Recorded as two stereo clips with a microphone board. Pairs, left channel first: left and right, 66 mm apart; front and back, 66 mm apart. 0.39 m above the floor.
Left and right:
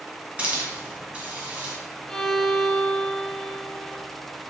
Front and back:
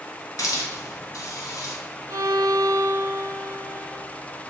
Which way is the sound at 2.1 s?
175° left.